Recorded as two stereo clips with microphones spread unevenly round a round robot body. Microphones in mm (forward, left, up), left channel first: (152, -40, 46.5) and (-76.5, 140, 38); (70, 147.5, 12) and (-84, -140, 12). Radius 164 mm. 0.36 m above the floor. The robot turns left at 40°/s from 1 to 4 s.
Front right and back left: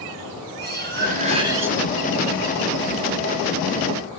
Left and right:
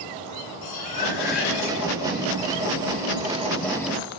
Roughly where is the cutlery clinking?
Left.